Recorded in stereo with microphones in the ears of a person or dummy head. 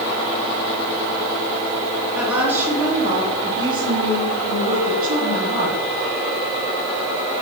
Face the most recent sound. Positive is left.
turn(degrees=-55)  # may be behind; listen again after turning